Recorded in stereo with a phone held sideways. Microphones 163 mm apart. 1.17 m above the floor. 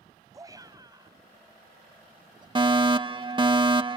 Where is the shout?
20° right (ahead or behind); by 2.5 s 25° right (ahead or behind).